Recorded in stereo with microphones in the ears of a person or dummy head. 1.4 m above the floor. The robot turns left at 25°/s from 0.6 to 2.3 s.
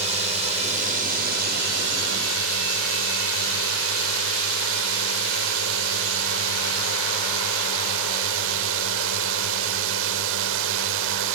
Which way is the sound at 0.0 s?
40° right.